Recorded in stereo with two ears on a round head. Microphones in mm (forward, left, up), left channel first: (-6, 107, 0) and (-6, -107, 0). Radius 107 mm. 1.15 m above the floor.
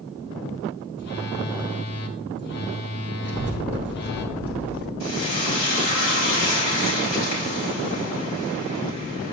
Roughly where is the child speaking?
Centre.